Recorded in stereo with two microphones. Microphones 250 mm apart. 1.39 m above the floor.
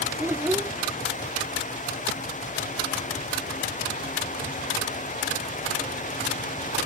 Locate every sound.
0.2 s a child speaking: 10° right (ahead or behind)